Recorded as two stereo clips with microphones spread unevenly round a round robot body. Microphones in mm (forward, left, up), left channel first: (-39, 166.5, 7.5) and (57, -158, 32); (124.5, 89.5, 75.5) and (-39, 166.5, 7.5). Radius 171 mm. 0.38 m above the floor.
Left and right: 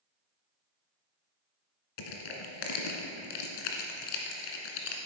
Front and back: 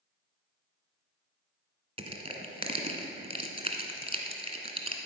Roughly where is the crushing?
Left.